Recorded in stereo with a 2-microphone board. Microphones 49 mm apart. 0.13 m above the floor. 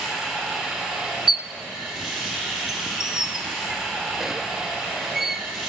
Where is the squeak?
5° right (ahead or behind), 0.6 m.